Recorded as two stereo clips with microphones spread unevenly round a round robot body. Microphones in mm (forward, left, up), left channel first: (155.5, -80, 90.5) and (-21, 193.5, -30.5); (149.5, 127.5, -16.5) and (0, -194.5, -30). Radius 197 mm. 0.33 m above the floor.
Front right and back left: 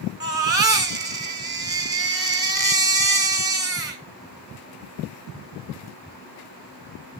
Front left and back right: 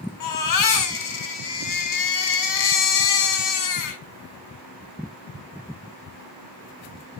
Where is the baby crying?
55° left, 2.5 m.